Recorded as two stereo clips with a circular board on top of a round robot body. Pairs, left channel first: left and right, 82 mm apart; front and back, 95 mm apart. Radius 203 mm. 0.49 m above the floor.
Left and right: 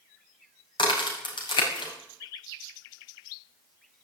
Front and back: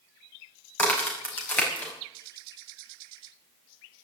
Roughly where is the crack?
Left.